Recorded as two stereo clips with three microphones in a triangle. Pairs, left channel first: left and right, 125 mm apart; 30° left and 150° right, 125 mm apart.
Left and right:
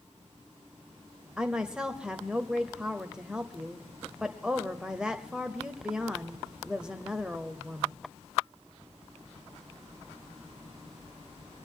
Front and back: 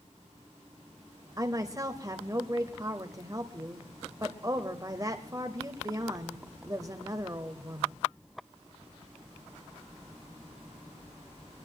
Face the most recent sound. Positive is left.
turn(degrees=-165)